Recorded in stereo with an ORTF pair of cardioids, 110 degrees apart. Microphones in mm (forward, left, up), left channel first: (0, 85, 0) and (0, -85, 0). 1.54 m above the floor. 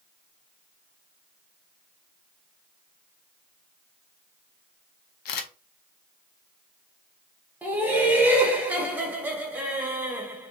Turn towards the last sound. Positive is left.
turn(degrees=-10)